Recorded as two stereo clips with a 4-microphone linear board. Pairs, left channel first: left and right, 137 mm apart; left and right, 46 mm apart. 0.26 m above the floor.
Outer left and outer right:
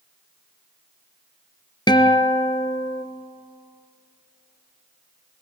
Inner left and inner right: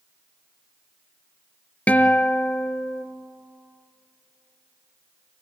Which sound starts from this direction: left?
A guitar, at 1.9 s.